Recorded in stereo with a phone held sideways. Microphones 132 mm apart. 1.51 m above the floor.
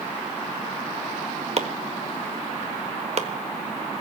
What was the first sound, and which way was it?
Chopping, 50° right (ahead or behind).